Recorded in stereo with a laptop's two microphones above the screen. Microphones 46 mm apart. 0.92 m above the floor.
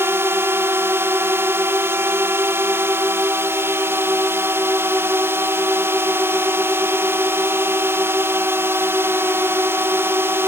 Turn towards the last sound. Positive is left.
turn(degrees=-70)  # may be behind; listen again after turning